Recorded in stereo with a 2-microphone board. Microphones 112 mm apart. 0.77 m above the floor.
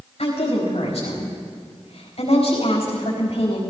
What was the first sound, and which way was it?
A woman speaking, 80° left.